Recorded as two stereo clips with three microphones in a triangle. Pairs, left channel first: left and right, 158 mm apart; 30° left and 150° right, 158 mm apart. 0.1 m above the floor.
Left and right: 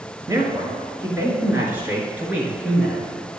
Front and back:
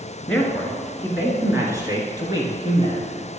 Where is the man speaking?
50° right, 1.8 m; by 3.1 s 170° right, 2 m.